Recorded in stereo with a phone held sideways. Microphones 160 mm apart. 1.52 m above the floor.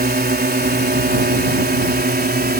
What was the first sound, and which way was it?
A drone, 75° right (ahead or behind).